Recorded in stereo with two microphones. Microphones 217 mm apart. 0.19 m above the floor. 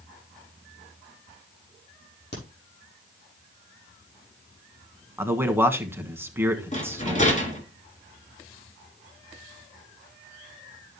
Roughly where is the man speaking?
Centre.